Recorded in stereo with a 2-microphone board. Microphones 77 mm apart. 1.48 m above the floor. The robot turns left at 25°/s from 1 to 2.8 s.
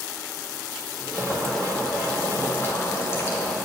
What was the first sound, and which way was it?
Boiling, 170° right.